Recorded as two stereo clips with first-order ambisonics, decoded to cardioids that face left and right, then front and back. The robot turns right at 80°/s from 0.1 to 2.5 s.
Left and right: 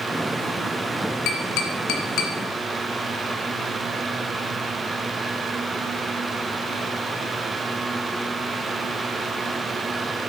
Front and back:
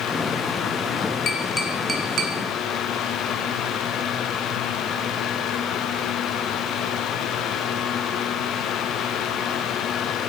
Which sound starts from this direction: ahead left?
Tapping, at 1.3 s.